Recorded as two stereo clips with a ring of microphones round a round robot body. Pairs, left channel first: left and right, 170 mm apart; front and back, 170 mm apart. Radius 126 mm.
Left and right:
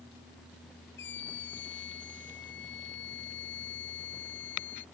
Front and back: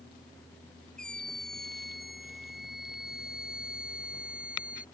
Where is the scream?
85° left; by 4.8 s 95° left.